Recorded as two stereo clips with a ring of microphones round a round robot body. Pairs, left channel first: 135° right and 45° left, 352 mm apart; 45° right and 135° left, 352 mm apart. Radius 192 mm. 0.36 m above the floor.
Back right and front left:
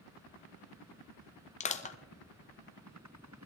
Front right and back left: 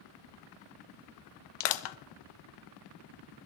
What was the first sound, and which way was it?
Crushing, 65° right.